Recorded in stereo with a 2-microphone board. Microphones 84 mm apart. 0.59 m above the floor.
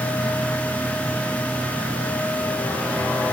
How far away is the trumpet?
I don't hear a trumpet.